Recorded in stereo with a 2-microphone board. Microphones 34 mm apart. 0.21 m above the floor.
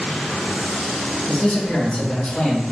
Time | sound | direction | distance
1.3 | a man speaking | 30° left (ahead or behind) | 1.1 m